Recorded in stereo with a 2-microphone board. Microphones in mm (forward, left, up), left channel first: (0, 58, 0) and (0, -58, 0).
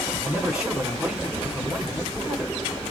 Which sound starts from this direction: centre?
A man speaking, at 0.2 s.